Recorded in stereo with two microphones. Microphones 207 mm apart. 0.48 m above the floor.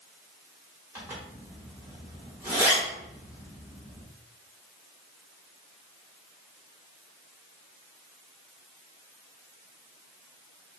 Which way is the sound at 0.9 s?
10° right (ahead or behind).